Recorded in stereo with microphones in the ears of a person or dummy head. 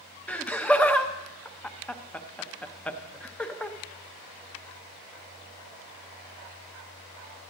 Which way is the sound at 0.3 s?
5° left (ahead or behind).